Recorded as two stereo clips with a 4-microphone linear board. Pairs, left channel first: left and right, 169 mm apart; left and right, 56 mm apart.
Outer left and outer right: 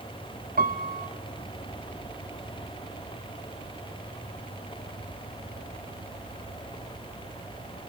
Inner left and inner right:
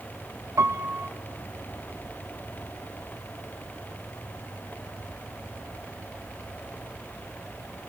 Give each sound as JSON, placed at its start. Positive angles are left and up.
{"t": 0.6, "sound": "a piano", "side_deg": -60, "distance_m": 1.4}